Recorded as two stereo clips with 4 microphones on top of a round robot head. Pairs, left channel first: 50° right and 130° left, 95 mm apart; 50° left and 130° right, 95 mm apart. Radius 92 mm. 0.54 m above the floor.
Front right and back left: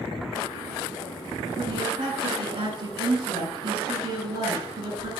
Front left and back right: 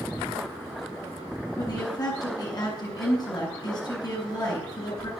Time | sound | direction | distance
1.6 | a woman speaking | 95° left | 8.5 m